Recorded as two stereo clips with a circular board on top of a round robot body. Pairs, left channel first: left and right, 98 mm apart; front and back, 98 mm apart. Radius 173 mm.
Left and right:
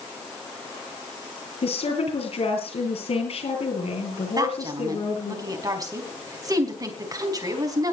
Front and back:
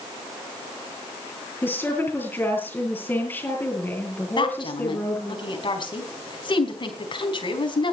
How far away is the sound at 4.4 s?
About 4.5 m.